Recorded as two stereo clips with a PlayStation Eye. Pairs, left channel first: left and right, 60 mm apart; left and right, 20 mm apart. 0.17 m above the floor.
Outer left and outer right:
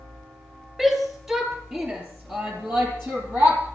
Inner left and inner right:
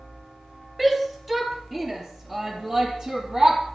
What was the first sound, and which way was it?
A shout, 10° right (ahead or behind).